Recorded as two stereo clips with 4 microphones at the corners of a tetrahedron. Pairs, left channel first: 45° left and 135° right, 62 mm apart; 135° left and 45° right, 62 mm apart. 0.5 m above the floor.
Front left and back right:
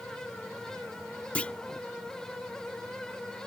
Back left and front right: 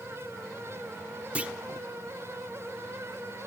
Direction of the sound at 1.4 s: 5° right.